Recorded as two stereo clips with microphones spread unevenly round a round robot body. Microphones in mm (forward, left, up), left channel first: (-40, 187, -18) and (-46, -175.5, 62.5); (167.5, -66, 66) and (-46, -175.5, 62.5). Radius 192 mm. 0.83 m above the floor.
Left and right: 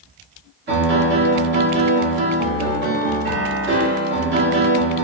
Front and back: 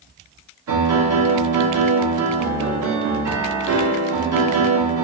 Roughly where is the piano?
Behind right.